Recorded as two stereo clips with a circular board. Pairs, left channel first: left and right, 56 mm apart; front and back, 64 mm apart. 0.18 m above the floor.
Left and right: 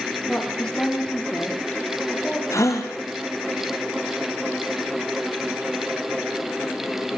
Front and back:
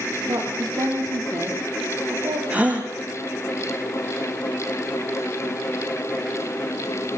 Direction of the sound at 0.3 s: 165° left.